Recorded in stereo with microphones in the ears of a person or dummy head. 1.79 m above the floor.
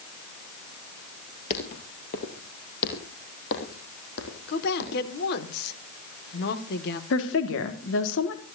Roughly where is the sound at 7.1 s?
Left.